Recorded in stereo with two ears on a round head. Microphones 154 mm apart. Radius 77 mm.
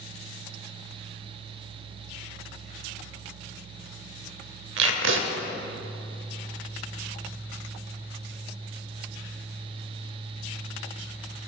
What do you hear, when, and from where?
4.8 s tape being pulled: 80° right, 0.8 m